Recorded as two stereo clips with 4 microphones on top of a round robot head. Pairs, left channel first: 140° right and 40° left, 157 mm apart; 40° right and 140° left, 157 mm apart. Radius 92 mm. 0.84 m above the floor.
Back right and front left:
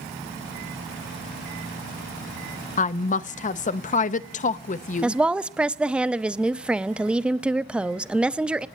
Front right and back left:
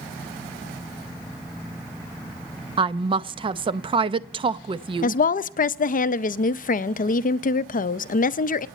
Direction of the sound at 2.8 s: 170° right.